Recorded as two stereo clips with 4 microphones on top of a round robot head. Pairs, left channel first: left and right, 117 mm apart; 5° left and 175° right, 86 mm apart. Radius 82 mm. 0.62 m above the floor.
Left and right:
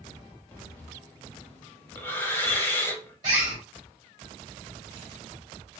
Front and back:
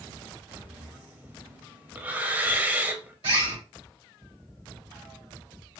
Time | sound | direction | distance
0.5 | breathing | 140° left | 0.9 m
3.2 | a bird | 150° right | 2 m